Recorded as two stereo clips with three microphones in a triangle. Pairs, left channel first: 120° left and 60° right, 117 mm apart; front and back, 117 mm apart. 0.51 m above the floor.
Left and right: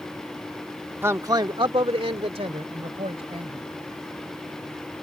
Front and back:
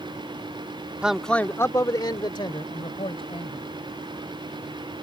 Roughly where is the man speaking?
Right.